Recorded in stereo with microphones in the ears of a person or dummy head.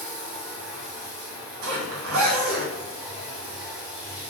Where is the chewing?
I don't hear chewing.